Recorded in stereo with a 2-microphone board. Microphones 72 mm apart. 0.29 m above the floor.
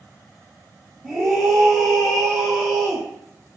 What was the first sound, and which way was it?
A scream, 5° left (ahead or behind).